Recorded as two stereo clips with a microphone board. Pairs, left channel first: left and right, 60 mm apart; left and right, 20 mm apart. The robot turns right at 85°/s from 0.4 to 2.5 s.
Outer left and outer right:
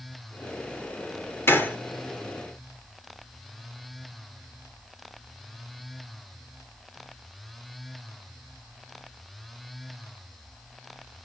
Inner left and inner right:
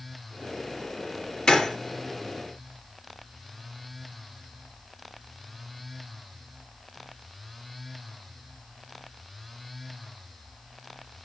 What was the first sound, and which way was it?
A gunshot, 40° left (ahead or behind).